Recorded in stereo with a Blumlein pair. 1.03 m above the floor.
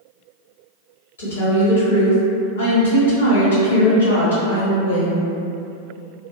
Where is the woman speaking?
70° left, 1.2 m.